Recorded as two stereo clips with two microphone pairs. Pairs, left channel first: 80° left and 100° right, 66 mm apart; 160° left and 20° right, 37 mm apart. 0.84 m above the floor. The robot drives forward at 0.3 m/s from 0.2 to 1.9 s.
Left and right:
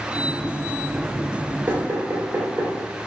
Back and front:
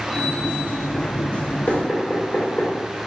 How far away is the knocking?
About 2.5 m.